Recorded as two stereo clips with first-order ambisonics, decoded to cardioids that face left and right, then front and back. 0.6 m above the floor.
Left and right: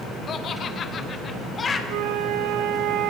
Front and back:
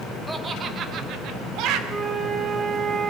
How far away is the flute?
About 1.8 m.